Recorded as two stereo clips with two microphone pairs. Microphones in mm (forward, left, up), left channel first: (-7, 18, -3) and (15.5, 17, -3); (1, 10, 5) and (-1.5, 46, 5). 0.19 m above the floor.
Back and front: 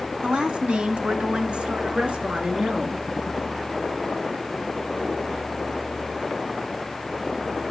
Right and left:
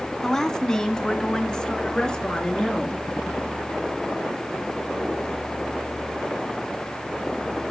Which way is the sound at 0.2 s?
15° right.